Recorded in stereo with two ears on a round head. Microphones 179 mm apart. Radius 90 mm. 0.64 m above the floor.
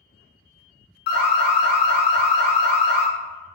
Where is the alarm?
55° left (ahead or behind), 0.7 m.